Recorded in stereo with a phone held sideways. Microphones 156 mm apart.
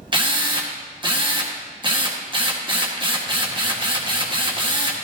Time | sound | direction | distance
0.1 | a drill | 30° right (ahead or behind) | 1.3 m